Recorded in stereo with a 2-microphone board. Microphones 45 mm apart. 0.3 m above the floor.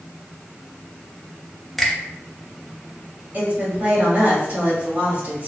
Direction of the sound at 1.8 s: 5° left (ahead or behind).